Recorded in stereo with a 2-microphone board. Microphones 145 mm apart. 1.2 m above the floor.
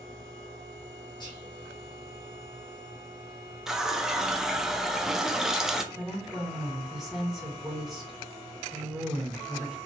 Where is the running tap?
5° right (ahead or behind), 0.5 m.